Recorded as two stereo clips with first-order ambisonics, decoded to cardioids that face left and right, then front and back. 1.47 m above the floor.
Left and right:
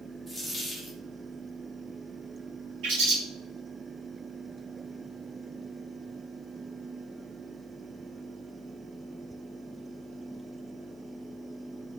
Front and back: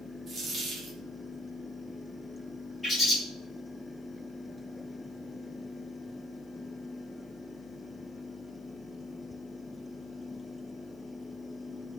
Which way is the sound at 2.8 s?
85° right.